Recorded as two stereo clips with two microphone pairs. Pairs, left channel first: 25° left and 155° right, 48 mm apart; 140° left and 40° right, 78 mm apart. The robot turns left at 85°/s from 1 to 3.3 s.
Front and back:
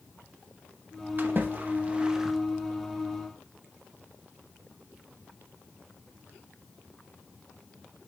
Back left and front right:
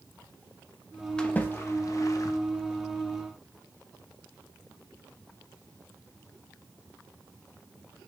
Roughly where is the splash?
Behind right.